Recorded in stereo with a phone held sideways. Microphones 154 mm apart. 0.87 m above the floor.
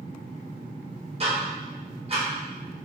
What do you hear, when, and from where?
1.2 s ticking: 40° right (ahead or behind), 0.8 m